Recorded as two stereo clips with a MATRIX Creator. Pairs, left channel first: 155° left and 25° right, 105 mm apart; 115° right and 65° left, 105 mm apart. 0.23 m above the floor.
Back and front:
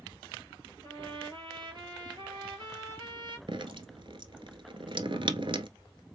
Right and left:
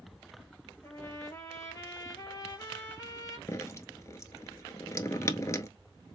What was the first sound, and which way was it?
A trumpet, 55° right.